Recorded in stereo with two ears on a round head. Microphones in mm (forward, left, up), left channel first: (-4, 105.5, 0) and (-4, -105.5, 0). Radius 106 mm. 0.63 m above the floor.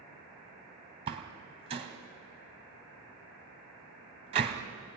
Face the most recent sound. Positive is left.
turn(degrees=-25)  # may be behind; listen again after turning